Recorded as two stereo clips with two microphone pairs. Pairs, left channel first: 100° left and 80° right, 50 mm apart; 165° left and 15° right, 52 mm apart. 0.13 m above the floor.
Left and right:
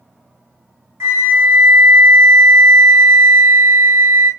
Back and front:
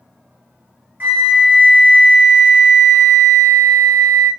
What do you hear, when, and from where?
1.0 s a flute: 65° right, 1.6 m